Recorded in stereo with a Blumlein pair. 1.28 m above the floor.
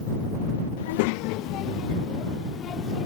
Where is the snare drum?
No snare drum in this recording.